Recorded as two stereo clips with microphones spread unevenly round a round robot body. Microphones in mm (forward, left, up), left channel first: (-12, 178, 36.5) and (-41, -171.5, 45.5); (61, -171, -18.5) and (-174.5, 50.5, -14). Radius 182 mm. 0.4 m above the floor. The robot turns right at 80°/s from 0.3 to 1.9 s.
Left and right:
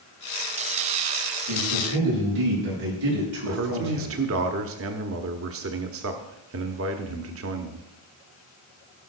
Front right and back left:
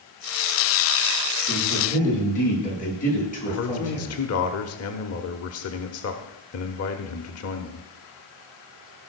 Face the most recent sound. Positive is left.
turn(degrees=-60)